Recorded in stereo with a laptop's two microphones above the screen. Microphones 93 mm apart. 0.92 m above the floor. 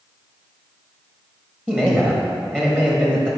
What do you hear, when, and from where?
1.7 s a man speaking: 20° right (ahead or behind), 1.5 m